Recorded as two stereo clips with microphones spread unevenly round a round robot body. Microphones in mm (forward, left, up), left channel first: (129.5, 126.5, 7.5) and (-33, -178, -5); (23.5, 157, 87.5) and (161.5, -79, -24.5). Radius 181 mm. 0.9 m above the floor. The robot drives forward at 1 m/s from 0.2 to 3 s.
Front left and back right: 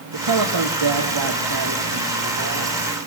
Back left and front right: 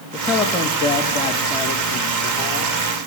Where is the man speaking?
135° right, 1.6 m; by 2.8 s 165° right, 3.5 m.